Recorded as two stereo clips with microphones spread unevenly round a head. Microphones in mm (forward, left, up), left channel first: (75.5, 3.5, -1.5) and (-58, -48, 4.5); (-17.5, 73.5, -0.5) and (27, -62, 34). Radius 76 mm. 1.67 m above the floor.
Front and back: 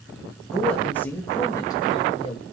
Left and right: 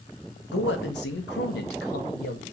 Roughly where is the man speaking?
Left.